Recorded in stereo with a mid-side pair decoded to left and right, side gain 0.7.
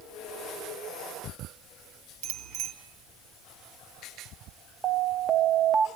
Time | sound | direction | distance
2.2 | a bicycle bell | 65° right | 3.5 m
4.8 | an alarm | 30° right | 0.9 m